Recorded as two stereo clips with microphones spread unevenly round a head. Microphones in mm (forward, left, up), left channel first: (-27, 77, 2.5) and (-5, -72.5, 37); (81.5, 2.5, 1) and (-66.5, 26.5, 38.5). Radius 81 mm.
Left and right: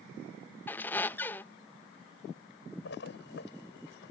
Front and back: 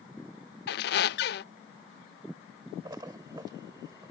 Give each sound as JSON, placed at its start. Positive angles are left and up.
{"t": 0.7, "sound": "a squeak", "azimuth_deg": 10}
{"t": 2.9, "sound": "a splash", "azimuth_deg": 105}